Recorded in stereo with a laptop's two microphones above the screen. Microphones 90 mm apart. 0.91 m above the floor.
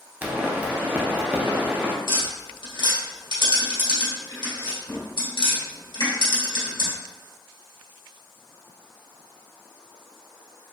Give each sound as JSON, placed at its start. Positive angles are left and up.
{"t": 0.2, "sound": "a pop", "side_deg": -20, "distance_m": 0.7}
{"t": 2.1, "sound": "tapping", "side_deg": 70, "distance_m": 1.9}